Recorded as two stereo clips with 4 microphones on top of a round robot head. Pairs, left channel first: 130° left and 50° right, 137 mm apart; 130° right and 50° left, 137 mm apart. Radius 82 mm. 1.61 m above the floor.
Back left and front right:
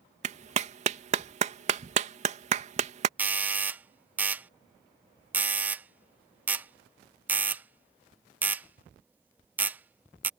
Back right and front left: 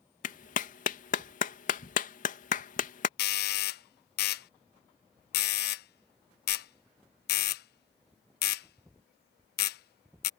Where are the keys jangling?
No keys jangling in this recording.